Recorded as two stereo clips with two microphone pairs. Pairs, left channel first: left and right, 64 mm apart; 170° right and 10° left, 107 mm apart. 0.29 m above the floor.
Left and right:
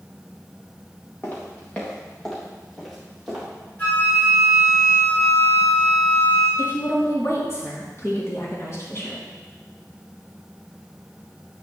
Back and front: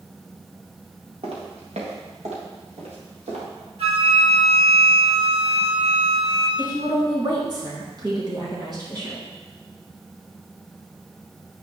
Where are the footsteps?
30° left, 3 m; by 3.4 s 5° right, 4.5 m.